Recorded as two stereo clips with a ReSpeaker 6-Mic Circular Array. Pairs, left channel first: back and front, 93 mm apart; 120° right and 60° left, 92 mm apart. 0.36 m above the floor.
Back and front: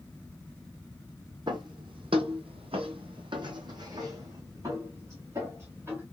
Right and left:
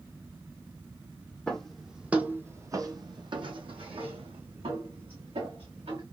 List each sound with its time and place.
1.5 s footsteps: 40° right, 0.9 m; by 6.0 s 65° left, 2.0 m